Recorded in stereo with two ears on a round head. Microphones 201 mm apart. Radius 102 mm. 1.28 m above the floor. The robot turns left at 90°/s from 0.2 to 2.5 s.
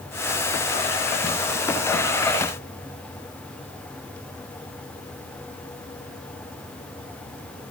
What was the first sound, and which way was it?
Only background noise.